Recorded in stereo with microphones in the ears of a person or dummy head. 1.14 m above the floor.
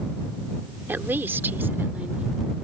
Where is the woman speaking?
10° right (ahead or behind).